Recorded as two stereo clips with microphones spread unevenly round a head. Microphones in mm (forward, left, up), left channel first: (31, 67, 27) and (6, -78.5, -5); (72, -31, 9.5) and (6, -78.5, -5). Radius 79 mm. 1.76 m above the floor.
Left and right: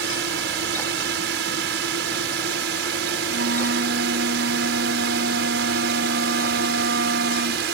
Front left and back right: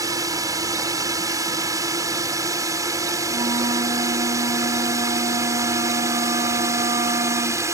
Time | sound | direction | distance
0.0 | a drone | 100° right | ?
3.3 | a flute | 120° right | ?